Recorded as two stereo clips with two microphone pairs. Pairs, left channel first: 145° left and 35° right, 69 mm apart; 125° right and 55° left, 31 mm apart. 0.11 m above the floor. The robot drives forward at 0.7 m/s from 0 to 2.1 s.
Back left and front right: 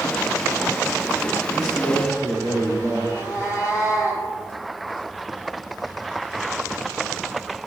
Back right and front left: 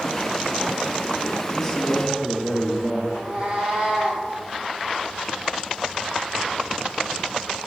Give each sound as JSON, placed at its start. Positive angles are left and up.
{"t": 1.5, "sound": "a man speaking", "azimuth_deg": 155, "distance_m": 3.0}
{"t": 3.1, "sound": "a cat meowing", "azimuth_deg": 105, "distance_m": 2.0}